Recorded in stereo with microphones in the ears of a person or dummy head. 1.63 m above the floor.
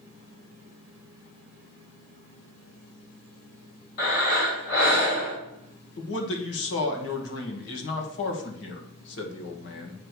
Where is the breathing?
60° left (ahead or behind), 4 m.